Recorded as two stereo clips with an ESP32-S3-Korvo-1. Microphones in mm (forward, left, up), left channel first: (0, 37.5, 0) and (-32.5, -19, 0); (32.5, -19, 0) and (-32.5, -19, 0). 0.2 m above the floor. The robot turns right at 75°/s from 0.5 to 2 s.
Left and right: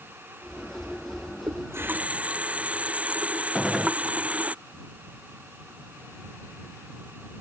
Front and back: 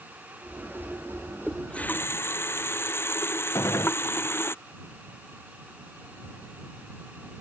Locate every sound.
1.5 s a running tap: 90° right; by 4.5 s 50° right
3.5 s a gunshot: 30° right